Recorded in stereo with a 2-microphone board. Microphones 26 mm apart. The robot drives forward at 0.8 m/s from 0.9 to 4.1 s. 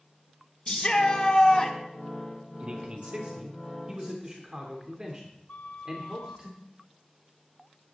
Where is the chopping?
I don't hear chopping.